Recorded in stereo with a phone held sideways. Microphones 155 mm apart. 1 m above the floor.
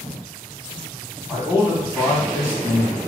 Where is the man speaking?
10° right (ahead or behind), 1.3 m.